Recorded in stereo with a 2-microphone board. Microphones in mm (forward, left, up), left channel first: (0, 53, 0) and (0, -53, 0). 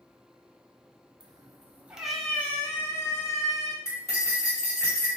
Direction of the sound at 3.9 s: 30° left (ahead or behind).